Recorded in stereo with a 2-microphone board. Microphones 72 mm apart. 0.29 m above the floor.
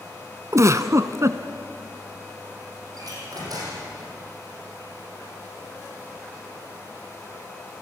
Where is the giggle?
45° right (ahead or behind), 0.9 m.